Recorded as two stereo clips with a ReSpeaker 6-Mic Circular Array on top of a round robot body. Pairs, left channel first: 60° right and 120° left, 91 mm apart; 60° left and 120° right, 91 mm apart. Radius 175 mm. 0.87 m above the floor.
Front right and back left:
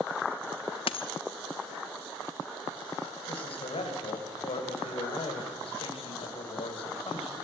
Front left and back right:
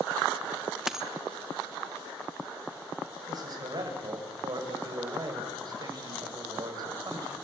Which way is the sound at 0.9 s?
35° right.